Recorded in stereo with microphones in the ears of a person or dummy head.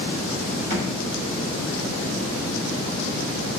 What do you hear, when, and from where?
0.7 s a thud: 40° right (ahead or behind), 1.4 m